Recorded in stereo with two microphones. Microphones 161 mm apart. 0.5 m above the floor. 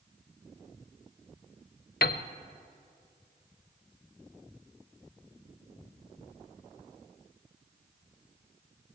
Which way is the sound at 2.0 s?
80° left.